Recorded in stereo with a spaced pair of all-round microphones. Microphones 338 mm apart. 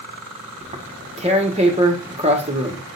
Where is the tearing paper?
20° right (ahead or behind), 1.3 m.